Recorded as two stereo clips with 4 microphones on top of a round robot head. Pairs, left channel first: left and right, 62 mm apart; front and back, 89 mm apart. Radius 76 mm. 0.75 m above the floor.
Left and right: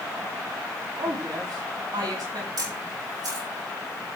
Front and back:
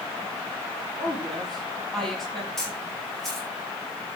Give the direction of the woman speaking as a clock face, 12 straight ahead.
3 o'clock.